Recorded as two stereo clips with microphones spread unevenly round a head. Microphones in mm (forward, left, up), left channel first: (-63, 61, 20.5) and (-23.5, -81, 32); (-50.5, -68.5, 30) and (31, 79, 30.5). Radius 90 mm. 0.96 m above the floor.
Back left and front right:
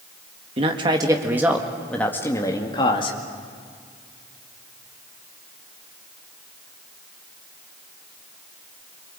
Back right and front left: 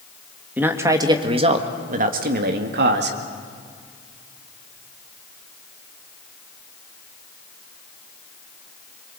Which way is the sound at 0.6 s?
20° right.